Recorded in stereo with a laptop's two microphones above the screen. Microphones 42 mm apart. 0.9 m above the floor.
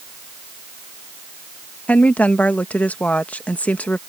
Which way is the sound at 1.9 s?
35° left (ahead or behind).